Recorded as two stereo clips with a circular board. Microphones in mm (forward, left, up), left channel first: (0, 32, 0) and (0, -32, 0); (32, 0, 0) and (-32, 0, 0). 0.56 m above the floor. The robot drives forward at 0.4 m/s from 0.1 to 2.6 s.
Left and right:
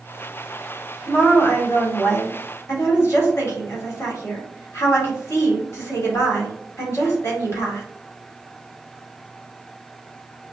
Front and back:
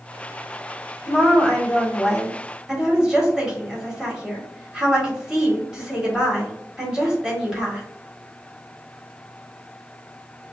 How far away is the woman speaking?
About 1.6 m.